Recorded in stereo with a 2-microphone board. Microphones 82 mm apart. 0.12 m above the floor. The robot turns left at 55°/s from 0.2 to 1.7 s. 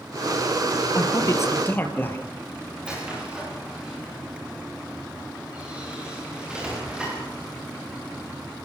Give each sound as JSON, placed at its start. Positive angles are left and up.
{"t": 0.9, "sound": "a man speaking", "azimuth_deg": 70, "distance_m": 3.0}
{"t": 2.8, "sound": "a squeak", "side_deg": -10, "distance_m": 9.0}